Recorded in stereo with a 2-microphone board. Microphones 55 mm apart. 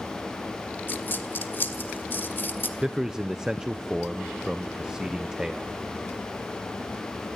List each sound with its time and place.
0.9 s a dropped coin: 35° left (ahead or behind), 1.6 m
2.8 s a man speaking: 10° right (ahead or behind), 0.7 m